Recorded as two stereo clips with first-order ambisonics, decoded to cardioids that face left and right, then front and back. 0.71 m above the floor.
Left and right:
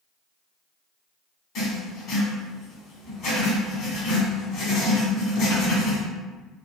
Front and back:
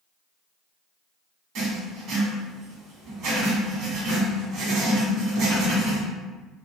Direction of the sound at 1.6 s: 145° left.